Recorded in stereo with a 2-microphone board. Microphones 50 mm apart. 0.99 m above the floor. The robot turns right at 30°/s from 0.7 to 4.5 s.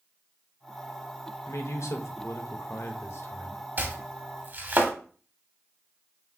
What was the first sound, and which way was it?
A man speaking, 70° left.